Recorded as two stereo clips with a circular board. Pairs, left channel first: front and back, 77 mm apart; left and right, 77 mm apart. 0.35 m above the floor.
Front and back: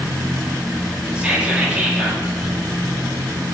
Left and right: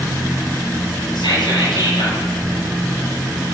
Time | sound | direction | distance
1.1 | whispering | 105° left | 8 m